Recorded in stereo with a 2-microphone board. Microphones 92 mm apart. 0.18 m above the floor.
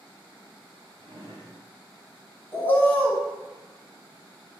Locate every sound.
1.0 s a drawer: 55° right (ahead or behind), 1.6 m
2.5 s a bird: 25° left (ahead or behind), 0.7 m